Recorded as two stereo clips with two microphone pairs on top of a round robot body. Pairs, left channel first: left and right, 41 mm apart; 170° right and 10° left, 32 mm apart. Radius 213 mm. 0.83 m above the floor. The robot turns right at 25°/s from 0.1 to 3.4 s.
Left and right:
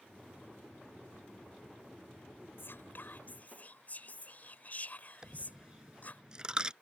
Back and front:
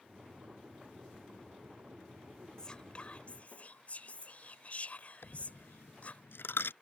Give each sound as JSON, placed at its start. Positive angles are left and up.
{"t": 2.6, "sound": "whispering", "azimuth_deg": 120}
{"t": 5.2, "sound": "a dropped coin", "azimuth_deg": -160}